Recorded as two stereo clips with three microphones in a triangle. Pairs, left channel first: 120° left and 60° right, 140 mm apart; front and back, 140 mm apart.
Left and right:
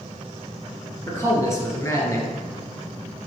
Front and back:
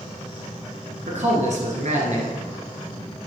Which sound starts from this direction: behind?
A man speaking, at 1.1 s.